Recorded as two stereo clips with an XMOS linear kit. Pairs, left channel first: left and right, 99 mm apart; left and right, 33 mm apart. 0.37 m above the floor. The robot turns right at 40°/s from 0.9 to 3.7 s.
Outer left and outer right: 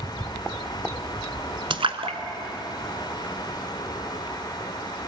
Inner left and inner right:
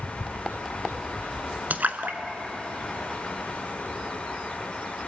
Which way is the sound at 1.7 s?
60° right (ahead or behind).